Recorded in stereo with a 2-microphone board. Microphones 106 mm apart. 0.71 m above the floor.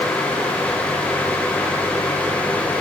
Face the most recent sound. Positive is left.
No sound to turn to.